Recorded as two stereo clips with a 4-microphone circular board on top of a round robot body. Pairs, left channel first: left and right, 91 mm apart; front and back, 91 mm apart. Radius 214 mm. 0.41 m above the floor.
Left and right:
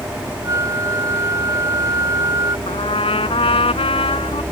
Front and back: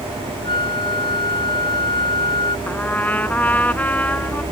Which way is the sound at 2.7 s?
75° left.